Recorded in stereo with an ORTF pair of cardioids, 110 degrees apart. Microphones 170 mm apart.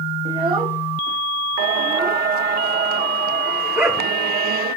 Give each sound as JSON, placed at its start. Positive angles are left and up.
{"t": 0.2, "sound": "a child speaking", "azimuth_deg": -35, "distance_m": 2.0}
{"t": 1.6, "sound": "singing", "azimuth_deg": -65, "distance_m": 0.7}
{"t": 3.8, "sound": "a dog barking", "azimuth_deg": -15, "distance_m": 5.0}